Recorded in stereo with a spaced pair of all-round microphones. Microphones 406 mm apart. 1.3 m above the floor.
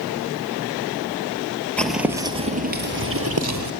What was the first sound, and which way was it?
Footsteps, 5° left (ahead or behind).